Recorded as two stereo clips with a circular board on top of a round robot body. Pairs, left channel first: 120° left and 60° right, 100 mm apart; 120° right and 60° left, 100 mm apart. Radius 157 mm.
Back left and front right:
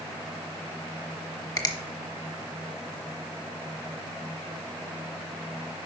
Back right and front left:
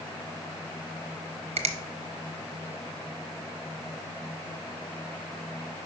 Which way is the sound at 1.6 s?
70° left.